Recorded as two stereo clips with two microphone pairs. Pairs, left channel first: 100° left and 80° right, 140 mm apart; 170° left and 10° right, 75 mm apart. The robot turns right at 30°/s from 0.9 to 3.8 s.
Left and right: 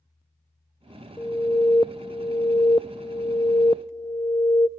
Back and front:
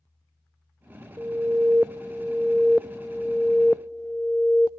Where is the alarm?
40° left, 0.6 m; by 4.7 s 120° left, 0.6 m.